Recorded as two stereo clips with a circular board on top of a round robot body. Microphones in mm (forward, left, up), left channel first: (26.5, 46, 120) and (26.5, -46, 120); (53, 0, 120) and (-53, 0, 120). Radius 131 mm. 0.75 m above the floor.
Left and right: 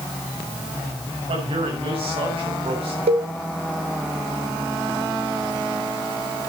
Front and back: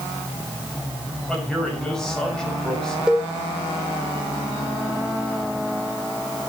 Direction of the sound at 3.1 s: 95° right.